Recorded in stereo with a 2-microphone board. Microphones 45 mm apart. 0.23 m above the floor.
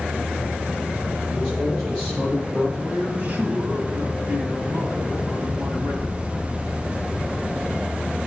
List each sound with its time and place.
1.3 s a man speaking: 15° right (ahead or behind), 3 m
2.8 s a man speaking: 35° right (ahead or behind), 1.5 m